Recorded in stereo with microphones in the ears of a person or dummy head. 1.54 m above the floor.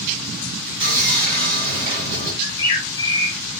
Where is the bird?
25° left (ahead or behind), 1.3 m.